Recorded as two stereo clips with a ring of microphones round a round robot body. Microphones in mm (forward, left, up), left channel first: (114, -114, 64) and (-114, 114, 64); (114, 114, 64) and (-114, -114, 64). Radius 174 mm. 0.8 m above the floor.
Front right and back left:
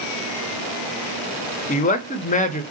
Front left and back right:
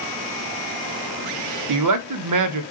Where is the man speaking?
110° right, 0.9 m.